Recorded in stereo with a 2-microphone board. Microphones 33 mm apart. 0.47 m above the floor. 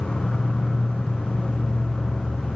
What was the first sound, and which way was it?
An insect, 15° left (ahead or behind).